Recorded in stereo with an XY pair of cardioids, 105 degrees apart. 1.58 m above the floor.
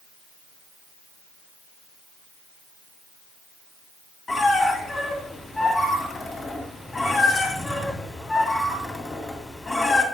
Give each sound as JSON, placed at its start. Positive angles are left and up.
{"t": 4.3, "sound": "a squeak", "azimuth_deg": 35, "distance_m": 2.0}